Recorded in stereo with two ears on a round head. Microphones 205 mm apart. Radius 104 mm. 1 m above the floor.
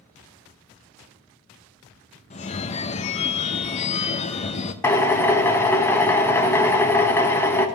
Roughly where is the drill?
Centre.